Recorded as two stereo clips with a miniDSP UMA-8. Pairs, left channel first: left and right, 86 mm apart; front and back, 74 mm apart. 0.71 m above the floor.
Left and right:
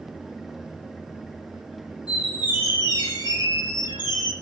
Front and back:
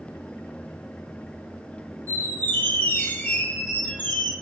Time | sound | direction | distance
2.1 | a squeak | 60° left | 0.8 m